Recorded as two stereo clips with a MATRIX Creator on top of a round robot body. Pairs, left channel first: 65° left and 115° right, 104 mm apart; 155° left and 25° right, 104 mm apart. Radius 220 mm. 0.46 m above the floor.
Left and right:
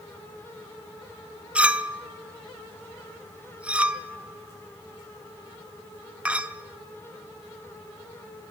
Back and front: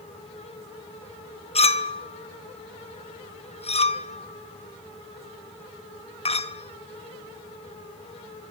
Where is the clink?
170° left, 1.3 m.